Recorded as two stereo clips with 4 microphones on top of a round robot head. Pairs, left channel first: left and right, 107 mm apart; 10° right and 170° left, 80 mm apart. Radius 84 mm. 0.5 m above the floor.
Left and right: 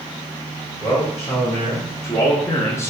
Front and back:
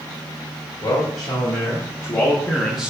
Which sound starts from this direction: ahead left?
A man speaking, at 0.8 s.